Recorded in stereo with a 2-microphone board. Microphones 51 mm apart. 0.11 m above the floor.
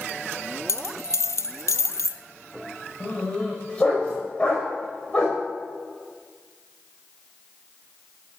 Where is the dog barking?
30° left (ahead or behind), 6 m.